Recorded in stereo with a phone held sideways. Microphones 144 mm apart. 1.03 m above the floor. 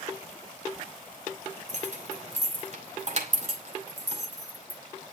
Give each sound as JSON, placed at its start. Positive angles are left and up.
{"t": 1.7, "sound": "keys jangling", "side_deg": -55, "distance_m": 2.5}